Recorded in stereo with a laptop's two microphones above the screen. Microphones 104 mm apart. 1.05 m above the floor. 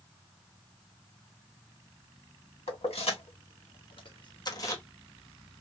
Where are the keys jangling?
80° left, 1.4 m; by 4.8 s 25° left (ahead or behind), 0.7 m.